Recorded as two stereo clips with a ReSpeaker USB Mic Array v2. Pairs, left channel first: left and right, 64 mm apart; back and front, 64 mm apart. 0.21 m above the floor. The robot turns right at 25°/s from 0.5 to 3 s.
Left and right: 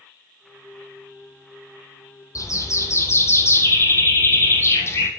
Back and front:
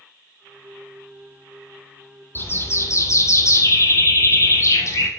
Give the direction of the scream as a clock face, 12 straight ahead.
I don't hear a scream.